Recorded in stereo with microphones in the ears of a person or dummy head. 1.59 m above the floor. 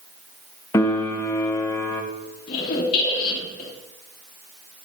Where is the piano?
15° left (ahead or behind), 0.8 m.